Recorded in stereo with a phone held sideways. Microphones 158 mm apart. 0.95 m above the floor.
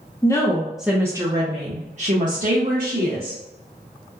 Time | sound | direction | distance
0.2 | a woman speaking | 20° left (ahead or behind) | 0.7 m